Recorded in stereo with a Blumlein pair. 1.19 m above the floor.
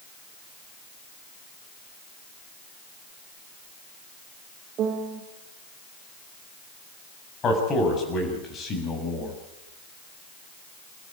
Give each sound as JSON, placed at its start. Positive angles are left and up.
{"t": 4.8, "sound": "a piano", "azimuth_deg": -30, "distance_m": 2.0}
{"t": 7.4, "sound": "a man speaking", "azimuth_deg": 25, "distance_m": 7.0}